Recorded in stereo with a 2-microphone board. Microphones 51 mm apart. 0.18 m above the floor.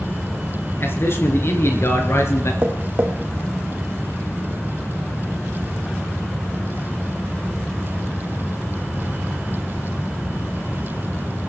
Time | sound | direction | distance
0.8 | a man speaking | 50° left (ahead or behind) | 3 m
2.6 | tapping | 40° right (ahead or behind) | 2.5 m